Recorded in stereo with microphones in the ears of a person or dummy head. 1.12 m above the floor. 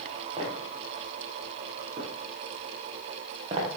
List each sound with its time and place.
0.4 s footsteps: 30° right (ahead or behind), 7.5 m